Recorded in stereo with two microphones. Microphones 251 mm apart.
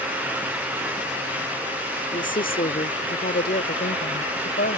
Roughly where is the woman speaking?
Left.